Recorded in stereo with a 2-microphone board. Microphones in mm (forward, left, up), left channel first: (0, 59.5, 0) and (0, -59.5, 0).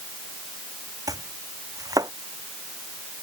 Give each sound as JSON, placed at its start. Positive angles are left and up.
{"t": 1.1, "sound": "chopping", "side_deg": -30}